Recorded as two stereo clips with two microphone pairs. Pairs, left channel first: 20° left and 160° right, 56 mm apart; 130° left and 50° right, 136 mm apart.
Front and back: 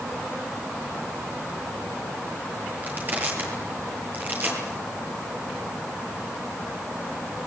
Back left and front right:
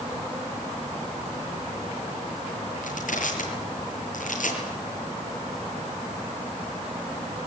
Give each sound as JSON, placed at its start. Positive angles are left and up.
{"t": 2.8, "sound": "crushing", "azimuth_deg": 145, "distance_m": 9.0}